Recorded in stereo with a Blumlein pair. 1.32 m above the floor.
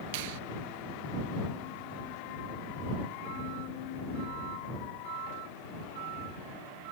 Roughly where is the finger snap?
Ahead right.